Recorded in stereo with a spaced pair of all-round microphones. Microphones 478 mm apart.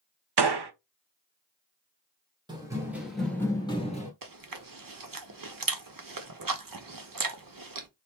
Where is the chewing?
45° right (ahead or behind), 0.6 m.